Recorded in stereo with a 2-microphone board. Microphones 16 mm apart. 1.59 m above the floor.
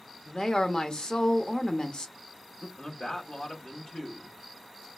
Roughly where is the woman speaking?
Left.